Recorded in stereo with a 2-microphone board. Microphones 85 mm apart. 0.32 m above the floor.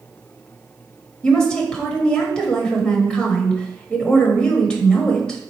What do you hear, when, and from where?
1.2 s a woman speaking: 10° left (ahead or behind), 1.0 m